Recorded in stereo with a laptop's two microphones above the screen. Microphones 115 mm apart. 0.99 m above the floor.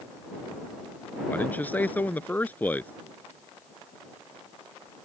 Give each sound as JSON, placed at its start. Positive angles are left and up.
{"t": 1.3, "sound": "a man speaking", "side_deg": 15}